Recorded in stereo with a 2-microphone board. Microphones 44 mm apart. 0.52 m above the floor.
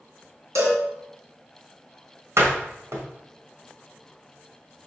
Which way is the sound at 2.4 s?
75° right (ahead or behind).